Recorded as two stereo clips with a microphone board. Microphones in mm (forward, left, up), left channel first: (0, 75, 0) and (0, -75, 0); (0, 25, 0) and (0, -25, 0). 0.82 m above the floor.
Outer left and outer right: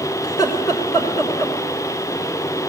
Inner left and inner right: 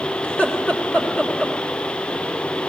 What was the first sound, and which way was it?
Laughter, 25° left (ahead or behind).